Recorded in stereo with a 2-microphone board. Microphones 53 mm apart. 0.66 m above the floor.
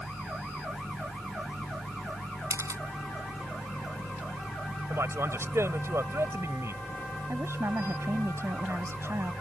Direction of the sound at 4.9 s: 60° right (ahead or behind).